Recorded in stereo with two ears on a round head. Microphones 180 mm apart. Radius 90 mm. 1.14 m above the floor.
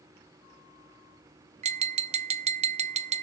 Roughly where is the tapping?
Right.